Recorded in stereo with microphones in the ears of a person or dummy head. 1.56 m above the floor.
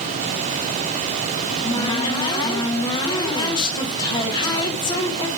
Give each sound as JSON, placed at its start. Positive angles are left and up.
{"t": 1.4, "sound": "a cupboard door", "side_deg": 25, "distance_m": 1.2}